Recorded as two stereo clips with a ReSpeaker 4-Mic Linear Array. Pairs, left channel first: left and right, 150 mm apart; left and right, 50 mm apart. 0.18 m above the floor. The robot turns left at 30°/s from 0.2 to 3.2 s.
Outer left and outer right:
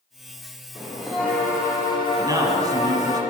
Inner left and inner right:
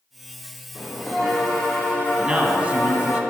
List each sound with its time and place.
0.8 s a bell: 175° right, 3.5 m; by 3.2 s 115° left, 3.5 m
2.2 s a man speaking: 20° right (ahead or behind), 1.6 m; by 3.2 s 25° right (ahead or behind), 1.6 m